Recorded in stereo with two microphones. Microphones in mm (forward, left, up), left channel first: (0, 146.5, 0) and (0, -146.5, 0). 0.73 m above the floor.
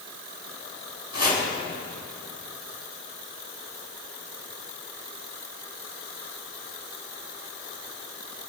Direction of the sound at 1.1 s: 60° left (ahead or behind).